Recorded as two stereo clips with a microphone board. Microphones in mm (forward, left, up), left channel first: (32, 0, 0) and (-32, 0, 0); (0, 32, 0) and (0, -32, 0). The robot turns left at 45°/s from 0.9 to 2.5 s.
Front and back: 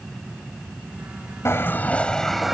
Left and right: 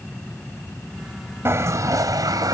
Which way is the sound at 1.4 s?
45° right.